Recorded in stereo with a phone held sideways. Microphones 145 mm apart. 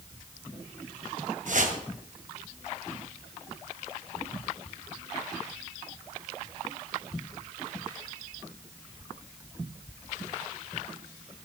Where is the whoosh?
60° right (ahead or behind), 1.7 m.